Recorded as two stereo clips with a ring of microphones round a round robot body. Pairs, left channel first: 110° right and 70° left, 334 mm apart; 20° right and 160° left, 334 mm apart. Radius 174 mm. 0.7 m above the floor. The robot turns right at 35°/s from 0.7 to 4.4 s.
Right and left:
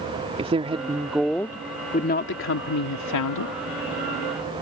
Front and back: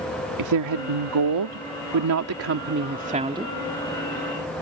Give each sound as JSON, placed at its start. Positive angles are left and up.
{"t": 0.4, "sound": "a woman speaking", "azimuth_deg": 140}